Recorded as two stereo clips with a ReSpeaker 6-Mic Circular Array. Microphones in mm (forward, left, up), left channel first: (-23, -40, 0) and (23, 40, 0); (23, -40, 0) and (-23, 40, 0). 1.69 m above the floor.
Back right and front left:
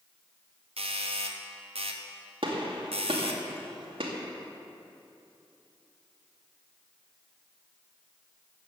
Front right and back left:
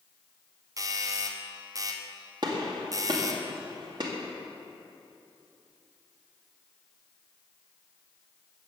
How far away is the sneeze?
I don't hear a sneeze.